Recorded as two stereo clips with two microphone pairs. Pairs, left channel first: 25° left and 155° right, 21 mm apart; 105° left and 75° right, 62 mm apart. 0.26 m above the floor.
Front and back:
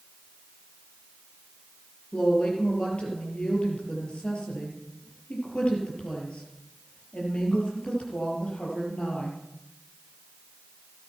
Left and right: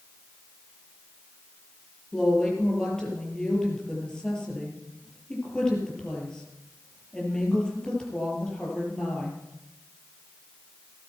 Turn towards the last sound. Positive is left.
turn(degrees=30)